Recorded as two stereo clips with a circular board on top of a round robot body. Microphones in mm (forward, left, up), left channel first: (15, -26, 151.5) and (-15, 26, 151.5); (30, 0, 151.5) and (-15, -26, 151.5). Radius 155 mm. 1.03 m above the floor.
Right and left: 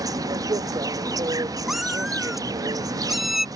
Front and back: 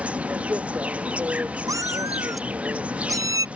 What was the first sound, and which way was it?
An insect, 145° left.